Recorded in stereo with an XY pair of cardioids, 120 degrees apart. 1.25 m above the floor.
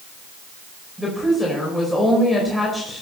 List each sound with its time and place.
1.0 s a woman speaking: 10° left, 4.5 m